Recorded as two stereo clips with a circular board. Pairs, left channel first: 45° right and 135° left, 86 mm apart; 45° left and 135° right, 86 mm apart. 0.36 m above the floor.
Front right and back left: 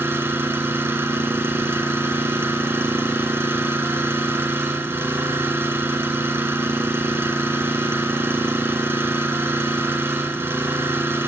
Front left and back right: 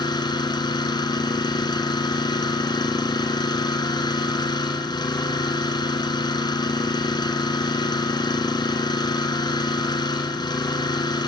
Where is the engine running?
75° left, 1.7 m.